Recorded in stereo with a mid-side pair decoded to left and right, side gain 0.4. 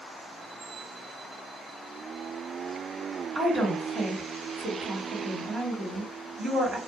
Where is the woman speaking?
50° right, 1.9 m.